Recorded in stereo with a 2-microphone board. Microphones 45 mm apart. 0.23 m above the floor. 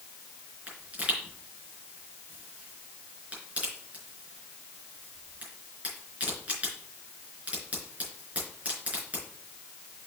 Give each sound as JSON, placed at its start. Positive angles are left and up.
{"t": 0.7, "sound": "a pop", "side_deg": -30, "distance_m": 4.0}